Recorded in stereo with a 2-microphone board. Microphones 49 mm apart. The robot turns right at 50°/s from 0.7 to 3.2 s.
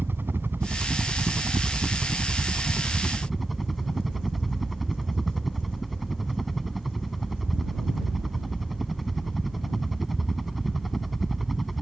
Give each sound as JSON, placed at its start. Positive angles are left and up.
{"t": 0.0, "sound": "a helicopter", "azimuth_deg": -125}